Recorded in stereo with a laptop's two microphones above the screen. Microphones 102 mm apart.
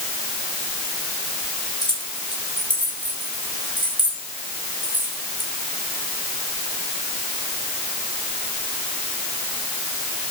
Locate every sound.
1.8 s keys jangling: 45° left (ahead or behind), 3.5 m